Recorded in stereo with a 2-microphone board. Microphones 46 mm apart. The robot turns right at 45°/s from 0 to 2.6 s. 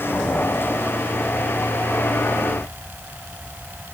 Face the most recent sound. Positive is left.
No sound to turn to.